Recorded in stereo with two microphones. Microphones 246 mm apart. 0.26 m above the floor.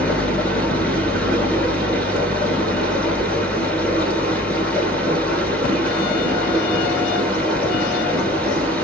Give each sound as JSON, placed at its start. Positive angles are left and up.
{"t": 0.0, "sound": "running water", "side_deg": 5, "distance_m": 1.6}